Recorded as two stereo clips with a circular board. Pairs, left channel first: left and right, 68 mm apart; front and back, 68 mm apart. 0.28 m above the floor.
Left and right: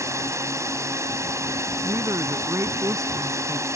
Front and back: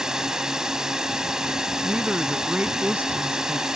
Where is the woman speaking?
115° right.